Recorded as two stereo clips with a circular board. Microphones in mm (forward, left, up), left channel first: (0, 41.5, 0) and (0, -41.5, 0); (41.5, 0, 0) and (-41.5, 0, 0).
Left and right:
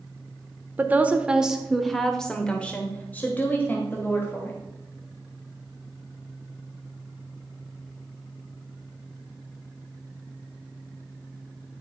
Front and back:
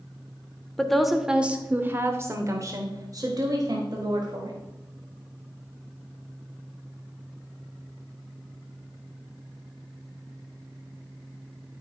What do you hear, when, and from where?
0.8 s a woman speaking: 75° right, 0.9 m; by 4.6 s 150° left, 2 m